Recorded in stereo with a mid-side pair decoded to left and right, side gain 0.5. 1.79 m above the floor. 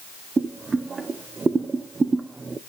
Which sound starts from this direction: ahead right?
Boiling, at 0.4 s.